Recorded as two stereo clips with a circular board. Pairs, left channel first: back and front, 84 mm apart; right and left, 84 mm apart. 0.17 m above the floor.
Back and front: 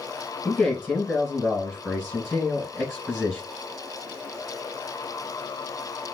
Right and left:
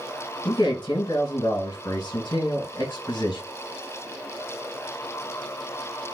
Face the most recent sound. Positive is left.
turn(degrees=-85)